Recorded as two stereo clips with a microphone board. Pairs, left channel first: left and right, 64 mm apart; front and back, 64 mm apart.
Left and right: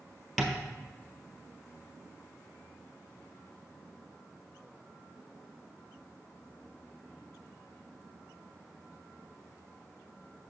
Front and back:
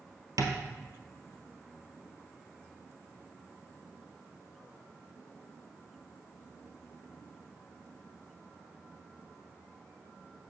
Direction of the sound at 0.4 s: Straight behind.